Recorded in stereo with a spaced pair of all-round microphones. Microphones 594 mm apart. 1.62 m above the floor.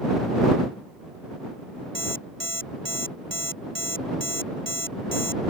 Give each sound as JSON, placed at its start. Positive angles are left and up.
{"t": 1.9, "sound": "an alarm clock", "side_deg": -45}